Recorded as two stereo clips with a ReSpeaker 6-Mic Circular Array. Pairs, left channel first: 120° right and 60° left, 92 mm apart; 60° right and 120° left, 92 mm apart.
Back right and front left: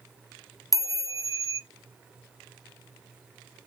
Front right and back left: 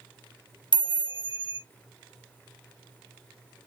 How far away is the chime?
About 0.8 m.